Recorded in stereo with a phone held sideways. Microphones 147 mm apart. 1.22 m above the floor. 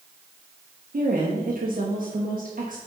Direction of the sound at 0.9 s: 65° right (ahead or behind).